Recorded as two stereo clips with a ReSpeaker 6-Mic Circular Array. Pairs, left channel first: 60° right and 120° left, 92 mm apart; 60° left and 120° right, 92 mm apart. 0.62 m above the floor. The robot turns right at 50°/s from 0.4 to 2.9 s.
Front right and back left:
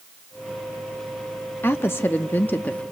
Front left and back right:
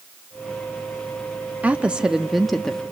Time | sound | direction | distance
1.6 | a woman speaking | 70° right | 0.6 m